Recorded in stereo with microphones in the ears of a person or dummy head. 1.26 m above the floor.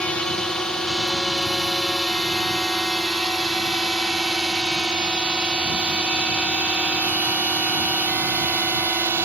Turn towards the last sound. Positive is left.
turn(degrees=-20)  # may be behind; listen again after turning